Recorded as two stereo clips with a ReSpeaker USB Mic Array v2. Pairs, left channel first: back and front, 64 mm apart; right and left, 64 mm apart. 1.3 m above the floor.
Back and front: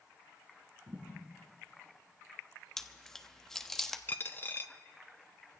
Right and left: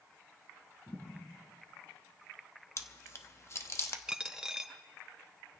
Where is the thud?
30° right, 4.5 m.